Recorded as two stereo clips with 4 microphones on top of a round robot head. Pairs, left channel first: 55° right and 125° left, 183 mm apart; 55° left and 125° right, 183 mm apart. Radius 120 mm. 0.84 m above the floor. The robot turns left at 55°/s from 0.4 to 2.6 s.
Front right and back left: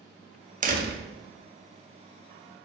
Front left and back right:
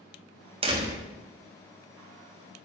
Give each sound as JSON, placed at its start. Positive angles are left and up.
{"t": 0.6, "sound": "a door slam", "azimuth_deg": 175, "distance_m": 1.3}